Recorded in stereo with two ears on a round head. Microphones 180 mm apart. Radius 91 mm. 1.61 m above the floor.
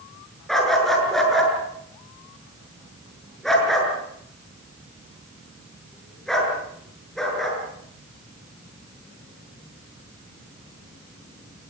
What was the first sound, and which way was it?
A dog barking, centre (ahead or behind).